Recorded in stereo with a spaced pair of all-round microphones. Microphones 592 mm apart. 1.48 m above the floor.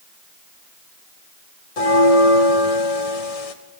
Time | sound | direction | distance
1.8 | a bell | 75° left (ahead or behind) | 0.8 m